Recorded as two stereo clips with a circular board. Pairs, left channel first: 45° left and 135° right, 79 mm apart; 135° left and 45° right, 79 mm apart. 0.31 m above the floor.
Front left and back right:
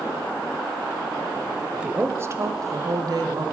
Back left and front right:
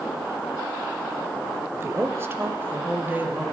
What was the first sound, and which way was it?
A woman speaking, 60° right.